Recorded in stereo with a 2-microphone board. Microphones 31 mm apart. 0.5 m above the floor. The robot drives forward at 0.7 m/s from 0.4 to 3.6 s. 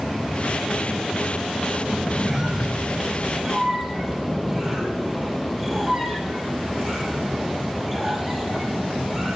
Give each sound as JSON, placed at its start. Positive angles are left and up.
{"t": 1.9, "sound": "a squeak", "side_deg": -25, "distance_m": 0.6}